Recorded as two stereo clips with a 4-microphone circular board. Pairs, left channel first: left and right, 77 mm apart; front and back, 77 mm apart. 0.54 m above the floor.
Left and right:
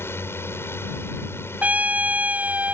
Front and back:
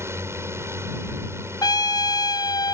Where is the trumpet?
20° right.